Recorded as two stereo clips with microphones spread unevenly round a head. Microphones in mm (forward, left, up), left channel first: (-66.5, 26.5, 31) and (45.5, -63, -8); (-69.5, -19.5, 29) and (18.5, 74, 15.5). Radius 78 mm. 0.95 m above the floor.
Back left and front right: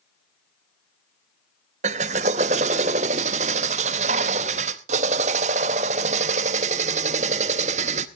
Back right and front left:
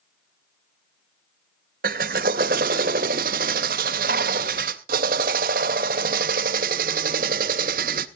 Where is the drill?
10° left, 0.6 m.